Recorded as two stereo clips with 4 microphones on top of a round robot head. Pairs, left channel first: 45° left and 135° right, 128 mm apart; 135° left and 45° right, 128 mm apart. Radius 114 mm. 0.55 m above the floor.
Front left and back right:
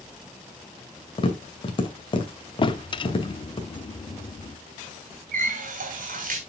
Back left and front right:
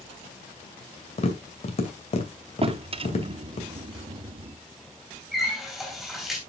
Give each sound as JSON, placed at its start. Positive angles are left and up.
{"t": 1.2, "sound": "tapping", "azimuth_deg": 95, "distance_m": 2.5}
{"t": 2.6, "sound": "a drawer", "azimuth_deg": -5, "distance_m": 0.7}
{"t": 5.3, "sound": "a running tap", "azimuth_deg": -135, "distance_m": 3.0}